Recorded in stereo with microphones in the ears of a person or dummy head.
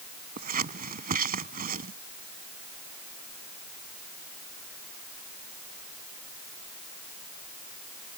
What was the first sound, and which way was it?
Scissors, 45° right (ahead or behind).